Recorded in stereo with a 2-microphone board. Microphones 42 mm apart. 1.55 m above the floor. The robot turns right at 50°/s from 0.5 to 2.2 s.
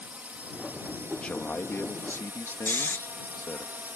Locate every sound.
0.0 s a drone: 35° right (ahead or behind); by 4.0 s 45° right (ahead or behind)
1.2 s a man speaking: 25° left; by 3.7 s 75° left
2.7 s snoring: 60° left (ahead or behind)